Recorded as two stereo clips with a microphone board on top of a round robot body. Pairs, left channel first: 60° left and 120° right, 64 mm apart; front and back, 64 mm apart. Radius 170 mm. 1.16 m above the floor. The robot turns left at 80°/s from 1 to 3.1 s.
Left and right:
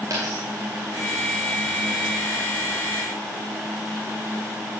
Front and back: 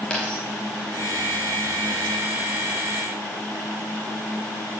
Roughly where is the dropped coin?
Right.